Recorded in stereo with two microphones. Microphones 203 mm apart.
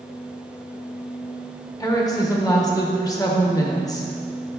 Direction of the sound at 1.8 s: 20° left (ahead or behind).